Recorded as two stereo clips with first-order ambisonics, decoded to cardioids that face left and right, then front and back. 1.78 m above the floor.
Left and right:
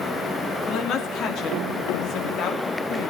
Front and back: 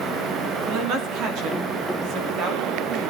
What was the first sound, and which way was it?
A woman speaking, 140° left.